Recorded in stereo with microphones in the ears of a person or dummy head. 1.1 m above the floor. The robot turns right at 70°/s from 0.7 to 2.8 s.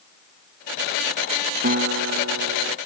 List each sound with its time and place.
1.6 s a guitar: 135° right; by 2.8 s 55° right